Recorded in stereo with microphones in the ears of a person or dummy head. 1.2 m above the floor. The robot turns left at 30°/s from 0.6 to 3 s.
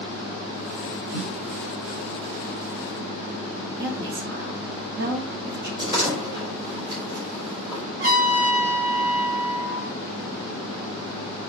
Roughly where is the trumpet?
Right.